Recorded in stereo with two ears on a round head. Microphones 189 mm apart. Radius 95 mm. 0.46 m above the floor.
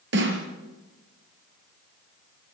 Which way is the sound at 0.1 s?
60° right (ahead or behind).